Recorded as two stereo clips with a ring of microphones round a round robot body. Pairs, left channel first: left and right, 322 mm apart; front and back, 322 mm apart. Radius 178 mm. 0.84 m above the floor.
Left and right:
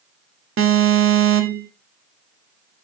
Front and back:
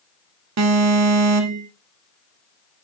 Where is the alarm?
140° right, 1.5 m.